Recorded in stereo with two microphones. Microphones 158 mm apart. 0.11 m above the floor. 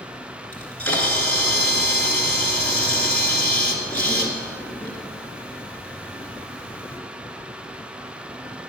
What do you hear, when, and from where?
0.5 s a camera shutter: 10° left (ahead or behind), 1.7 m